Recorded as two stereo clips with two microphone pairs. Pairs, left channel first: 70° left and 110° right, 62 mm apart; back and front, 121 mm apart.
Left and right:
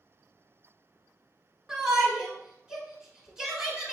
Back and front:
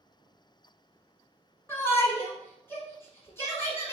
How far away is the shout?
About 1.3 m.